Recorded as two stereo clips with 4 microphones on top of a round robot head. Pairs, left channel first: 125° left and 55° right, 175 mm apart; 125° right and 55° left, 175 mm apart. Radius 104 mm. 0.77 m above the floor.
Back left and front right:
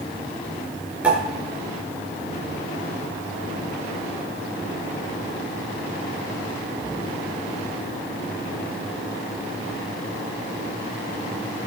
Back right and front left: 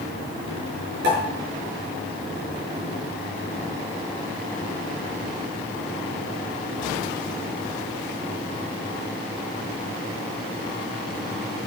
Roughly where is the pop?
Ahead left.